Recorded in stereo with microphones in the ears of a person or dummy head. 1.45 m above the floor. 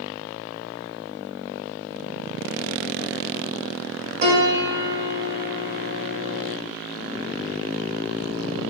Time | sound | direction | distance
4.2 | a piano | 50° right (ahead or behind) | 1.8 m